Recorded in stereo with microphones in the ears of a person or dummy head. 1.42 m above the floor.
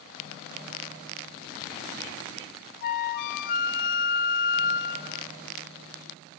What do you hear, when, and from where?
2.8 s a flute: 50° left (ahead or behind), 0.5 m